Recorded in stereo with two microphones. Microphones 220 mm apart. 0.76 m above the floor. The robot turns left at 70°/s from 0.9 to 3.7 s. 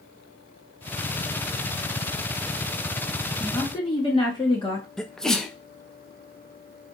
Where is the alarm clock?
No alarm clock in this recording.